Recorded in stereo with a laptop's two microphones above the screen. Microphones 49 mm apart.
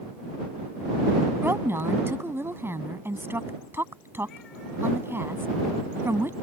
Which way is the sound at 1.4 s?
50° right (ahead or behind).